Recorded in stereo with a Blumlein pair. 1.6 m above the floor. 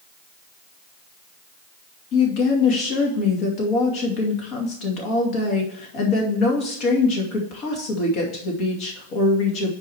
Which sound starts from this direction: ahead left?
A woman speaking, at 2.1 s.